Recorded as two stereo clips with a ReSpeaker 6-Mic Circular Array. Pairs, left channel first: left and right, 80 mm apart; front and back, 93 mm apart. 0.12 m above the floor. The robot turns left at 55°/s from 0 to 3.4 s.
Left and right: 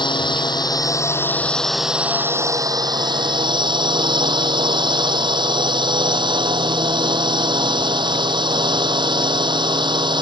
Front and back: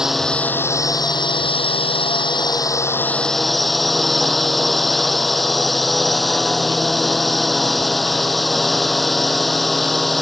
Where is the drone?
95° left; by 10.2 s 90° right.